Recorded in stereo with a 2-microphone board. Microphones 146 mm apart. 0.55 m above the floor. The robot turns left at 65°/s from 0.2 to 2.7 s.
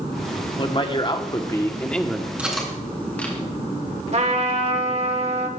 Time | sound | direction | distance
0.6 | a man speaking | 100° left | 1.4 m
2.4 | cutlery clinking | 10° right (ahead or behind) | 3 m
4.1 | a trumpet | 50° right (ahead or behind) | 1.7 m